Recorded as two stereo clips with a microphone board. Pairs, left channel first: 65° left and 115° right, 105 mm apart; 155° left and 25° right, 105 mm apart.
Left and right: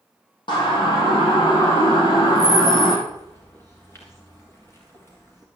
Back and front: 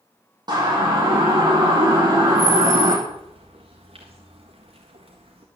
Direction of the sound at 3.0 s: Straight ahead.